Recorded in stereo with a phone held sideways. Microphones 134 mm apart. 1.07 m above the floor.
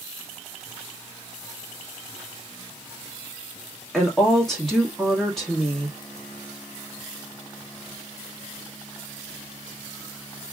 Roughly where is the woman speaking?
Centre.